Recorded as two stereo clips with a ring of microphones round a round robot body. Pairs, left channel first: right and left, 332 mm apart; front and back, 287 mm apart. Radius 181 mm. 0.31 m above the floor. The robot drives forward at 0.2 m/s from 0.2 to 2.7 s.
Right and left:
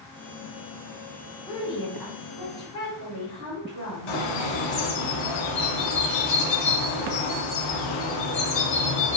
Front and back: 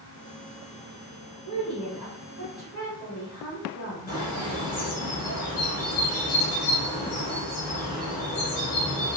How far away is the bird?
About 0.6 m.